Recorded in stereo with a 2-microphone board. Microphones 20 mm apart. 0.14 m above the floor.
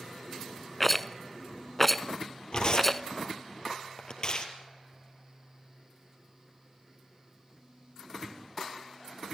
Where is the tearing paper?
45° left (ahead or behind), 3 m.